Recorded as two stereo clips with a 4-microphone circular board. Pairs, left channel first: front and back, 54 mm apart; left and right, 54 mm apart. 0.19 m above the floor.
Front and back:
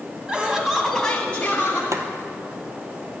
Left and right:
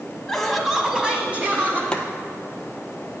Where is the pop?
No pop in this recording.